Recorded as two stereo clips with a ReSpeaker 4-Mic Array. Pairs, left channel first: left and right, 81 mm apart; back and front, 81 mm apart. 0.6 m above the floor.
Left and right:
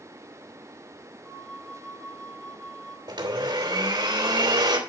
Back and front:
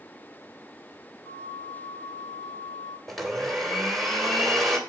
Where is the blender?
95° right, 3 m.